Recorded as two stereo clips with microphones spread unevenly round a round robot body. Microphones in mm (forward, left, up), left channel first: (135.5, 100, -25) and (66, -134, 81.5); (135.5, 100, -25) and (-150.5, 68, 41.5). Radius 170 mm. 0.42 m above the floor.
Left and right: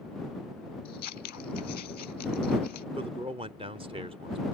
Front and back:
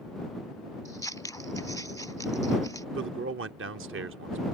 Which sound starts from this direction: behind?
A man speaking, at 3.0 s.